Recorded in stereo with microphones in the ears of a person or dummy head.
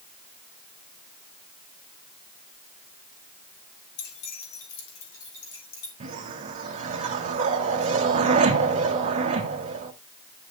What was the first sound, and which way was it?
Keys jangling, 75° left (ahead or behind).